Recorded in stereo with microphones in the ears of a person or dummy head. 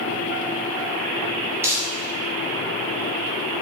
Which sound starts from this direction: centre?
Crumpling, at 1.6 s.